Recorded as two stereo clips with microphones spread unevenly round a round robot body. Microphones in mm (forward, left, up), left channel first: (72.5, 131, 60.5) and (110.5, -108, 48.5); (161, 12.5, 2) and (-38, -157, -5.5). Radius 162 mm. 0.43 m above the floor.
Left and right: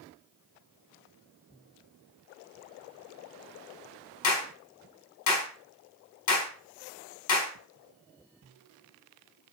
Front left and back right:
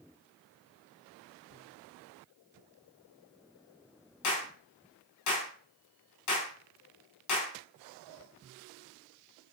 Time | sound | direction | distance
4.2 | a clap | 80° left | 4.5 m